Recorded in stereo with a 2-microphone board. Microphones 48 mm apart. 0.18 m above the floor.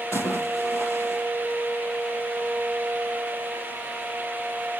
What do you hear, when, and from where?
0.1 s a splash: 75° left (ahead or behind), 5.5 m